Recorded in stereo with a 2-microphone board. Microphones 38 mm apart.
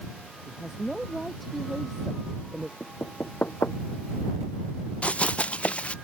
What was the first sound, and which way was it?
A woman speaking, centre (ahead or behind).